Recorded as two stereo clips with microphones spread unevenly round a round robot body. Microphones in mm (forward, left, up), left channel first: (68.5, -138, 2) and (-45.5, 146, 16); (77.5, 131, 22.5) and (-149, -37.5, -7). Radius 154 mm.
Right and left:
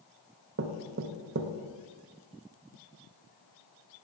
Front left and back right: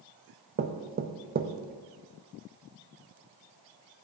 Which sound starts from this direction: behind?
Knocking, at 0.6 s.